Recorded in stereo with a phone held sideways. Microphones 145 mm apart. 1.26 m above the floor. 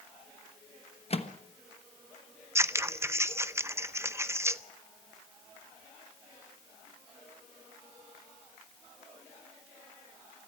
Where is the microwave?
45° left (ahead or behind), 1.2 m.